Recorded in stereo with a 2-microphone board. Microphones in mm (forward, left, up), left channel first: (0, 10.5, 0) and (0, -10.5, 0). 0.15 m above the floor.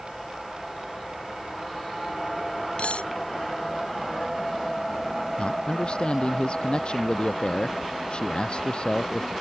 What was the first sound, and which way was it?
Cutlery clinking, 80° left.